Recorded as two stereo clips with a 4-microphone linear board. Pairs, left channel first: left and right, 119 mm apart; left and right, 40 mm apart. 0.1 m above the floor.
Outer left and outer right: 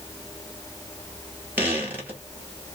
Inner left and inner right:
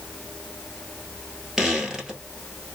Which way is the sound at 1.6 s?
15° right (ahead or behind).